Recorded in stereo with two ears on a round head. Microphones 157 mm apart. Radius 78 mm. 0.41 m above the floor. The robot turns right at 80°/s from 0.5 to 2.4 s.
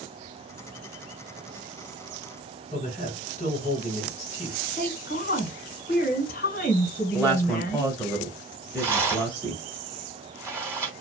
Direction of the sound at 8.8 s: 15° right (ahead or behind).